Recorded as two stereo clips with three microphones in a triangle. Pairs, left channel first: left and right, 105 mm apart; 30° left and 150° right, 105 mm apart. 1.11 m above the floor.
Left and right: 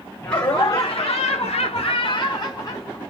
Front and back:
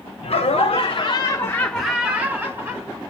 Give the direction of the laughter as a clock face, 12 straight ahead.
11 o'clock.